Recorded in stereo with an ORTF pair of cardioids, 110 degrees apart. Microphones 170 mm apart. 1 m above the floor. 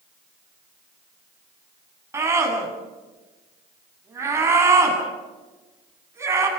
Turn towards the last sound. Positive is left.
turn(degrees=-15)